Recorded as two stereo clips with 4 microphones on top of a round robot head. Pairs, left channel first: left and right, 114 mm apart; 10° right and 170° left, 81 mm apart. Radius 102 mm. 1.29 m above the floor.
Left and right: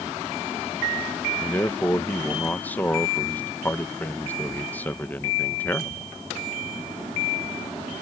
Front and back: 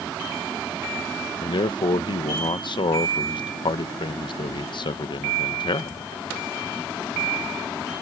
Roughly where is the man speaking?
Ahead.